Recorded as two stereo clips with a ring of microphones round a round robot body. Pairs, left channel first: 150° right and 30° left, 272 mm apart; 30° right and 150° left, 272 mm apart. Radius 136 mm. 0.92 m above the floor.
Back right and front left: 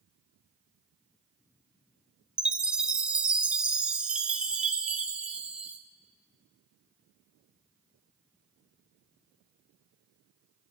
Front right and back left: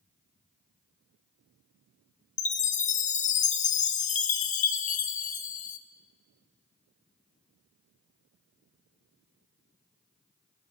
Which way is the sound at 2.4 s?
55° right.